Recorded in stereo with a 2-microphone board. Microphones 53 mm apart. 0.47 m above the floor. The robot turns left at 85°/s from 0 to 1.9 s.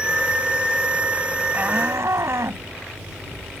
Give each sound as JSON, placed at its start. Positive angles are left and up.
{"t": 1.5, "sound": "a shout", "azimuth_deg": -30}